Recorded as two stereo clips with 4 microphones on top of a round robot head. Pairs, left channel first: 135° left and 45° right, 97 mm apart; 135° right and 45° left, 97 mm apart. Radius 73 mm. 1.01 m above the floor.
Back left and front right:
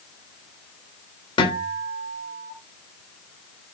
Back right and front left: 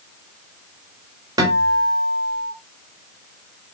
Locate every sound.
1.4 s a guitar: 95° left, 3.5 m